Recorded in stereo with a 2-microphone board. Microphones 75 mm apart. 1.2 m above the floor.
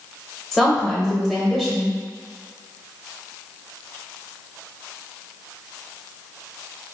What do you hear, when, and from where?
0.5 s a woman speaking: centre (ahead or behind), 0.8 m